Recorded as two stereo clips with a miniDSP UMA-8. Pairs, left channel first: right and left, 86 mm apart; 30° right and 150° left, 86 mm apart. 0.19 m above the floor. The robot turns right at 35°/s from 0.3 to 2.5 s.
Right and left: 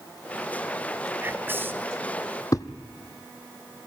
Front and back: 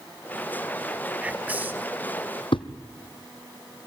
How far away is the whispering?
About 1.0 m.